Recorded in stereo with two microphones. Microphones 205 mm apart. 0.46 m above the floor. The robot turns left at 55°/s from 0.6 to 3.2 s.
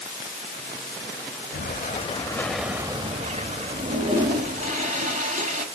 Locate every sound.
1.5 s an explosion: 60° left, 0.6 m; by 4.7 s 35° right, 0.6 m
3.7 s a toilet flushing: 40° right (ahead or behind), 1.0 m